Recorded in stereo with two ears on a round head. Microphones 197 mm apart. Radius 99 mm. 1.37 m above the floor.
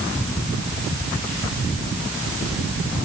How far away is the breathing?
I don't hear breathing.